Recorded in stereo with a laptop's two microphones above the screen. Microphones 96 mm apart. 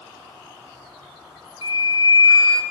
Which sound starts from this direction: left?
A flute, at 1.6 s.